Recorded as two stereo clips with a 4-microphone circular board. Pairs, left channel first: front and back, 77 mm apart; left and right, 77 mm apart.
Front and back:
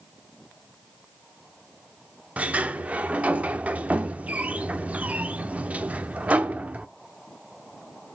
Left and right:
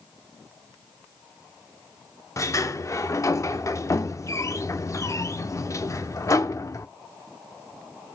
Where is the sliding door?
115° left, 0.5 m.